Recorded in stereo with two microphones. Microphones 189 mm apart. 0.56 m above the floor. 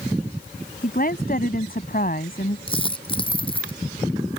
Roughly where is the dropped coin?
Left.